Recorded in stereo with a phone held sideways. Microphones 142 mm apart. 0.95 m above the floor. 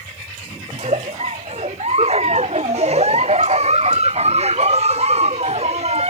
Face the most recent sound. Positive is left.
turn(degrees=-50)  # may be behind; listen again after turning